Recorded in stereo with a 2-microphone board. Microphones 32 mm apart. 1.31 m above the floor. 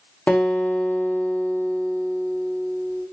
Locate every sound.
0.3 s a guitar: 45° left (ahead or behind), 0.7 m